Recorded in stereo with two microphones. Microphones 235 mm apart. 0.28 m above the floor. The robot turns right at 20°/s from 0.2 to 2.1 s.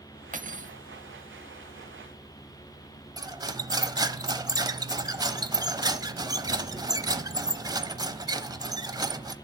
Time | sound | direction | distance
0.3 | cutlery clinking | 35° right (ahead or behind) | 0.9 m
3.2 | cutlery clinking | 15° right (ahead or behind) | 0.7 m